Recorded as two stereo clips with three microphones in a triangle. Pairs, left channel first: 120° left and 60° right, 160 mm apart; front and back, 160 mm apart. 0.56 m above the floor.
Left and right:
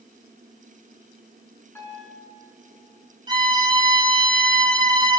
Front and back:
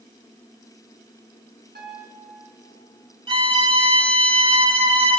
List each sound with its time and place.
1.8 s a piano: 165° right, 4.5 m
3.3 s a violin: 125° right, 1.7 m